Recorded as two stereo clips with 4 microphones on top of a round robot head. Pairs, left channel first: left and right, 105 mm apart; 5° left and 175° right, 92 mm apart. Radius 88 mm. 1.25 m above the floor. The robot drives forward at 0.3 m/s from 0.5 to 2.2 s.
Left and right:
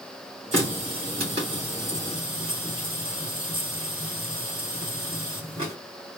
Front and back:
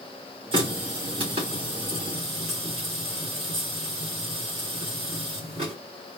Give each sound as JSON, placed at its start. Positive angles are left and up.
{"t": 0.5, "sound": "a running tap", "azimuth_deg": -130, "distance_m": 1.5}